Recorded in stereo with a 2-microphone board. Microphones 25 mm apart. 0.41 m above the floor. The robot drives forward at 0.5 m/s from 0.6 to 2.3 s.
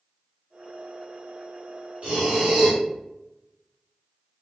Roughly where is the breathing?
Right.